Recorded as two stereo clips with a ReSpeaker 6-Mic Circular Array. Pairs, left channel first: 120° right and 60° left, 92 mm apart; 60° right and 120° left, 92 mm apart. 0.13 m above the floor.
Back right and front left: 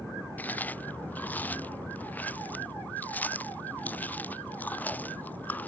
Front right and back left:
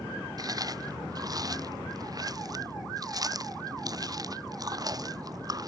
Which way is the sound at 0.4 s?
170° left.